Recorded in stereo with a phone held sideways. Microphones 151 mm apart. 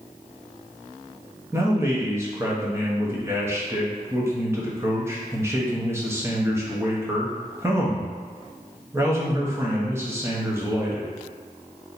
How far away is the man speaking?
About 1.0 m.